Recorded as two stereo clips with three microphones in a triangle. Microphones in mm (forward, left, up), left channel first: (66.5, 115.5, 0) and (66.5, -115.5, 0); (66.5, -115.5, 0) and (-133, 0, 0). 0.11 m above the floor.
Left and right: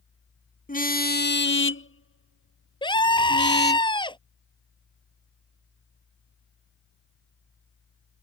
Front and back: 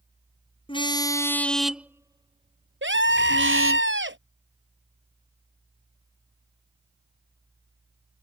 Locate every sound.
0.7 s a car horn: 35° left; by 3.8 s 135° left
2.8 s a scream: 155° left